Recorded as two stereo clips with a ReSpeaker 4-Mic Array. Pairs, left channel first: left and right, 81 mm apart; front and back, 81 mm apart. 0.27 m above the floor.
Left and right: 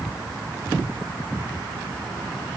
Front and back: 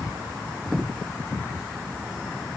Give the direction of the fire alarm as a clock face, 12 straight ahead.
I don't hear a fire alarm.